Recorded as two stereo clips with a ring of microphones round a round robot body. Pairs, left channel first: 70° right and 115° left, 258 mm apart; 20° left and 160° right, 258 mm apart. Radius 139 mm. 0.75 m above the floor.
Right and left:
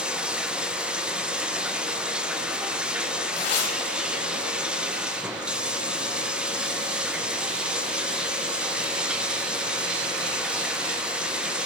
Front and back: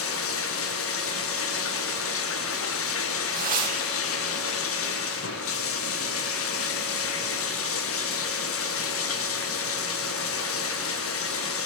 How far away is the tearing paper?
About 4 m.